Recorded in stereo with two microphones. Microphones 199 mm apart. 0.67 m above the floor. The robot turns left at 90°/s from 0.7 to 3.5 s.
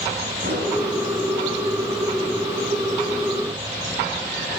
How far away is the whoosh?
About 2.5 m.